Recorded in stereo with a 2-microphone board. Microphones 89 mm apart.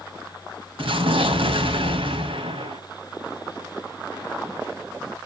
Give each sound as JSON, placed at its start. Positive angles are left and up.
{"t": 0.8, "sound": "an explosion", "side_deg": -80, "distance_m": 2.0}